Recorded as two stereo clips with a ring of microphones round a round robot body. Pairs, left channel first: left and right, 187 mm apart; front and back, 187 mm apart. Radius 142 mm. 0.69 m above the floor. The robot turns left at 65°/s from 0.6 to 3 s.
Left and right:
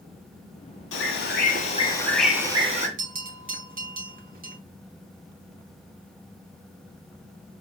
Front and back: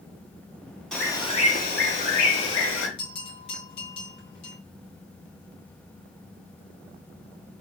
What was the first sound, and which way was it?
A bird, 90° left.